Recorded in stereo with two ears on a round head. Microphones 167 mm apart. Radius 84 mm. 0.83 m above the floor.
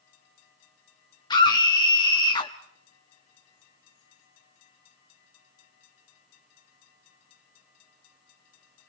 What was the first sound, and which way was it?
A scream, 25° left (ahead or behind).